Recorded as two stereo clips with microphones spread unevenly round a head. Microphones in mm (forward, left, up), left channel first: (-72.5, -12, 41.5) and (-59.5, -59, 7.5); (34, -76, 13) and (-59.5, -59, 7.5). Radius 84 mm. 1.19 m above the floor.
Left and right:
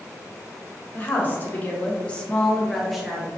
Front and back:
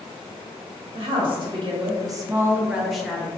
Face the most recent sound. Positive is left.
turn(degrees=-85)